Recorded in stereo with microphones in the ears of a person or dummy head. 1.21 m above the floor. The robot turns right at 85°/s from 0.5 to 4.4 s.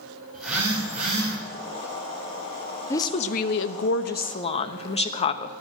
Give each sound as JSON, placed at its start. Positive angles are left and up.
{"t": 0.3, "sound": "a phone buzzing", "azimuth_deg": -175, "distance_m": 5.0}
{"t": 2.9, "sound": "a woman speaking", "azimuth_deg": 20, "distance_m": 1.0}